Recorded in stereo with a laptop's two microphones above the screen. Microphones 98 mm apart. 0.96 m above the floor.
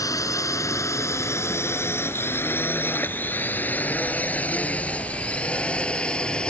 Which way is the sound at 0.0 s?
35° left (ahead or behind).